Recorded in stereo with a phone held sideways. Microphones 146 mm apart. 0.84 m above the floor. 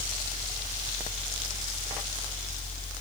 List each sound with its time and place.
0.0 s a fan: 65° left (ahead or behind)